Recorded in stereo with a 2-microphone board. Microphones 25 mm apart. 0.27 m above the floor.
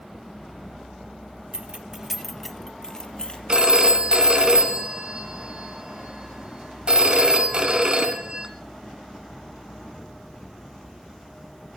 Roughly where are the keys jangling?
Right.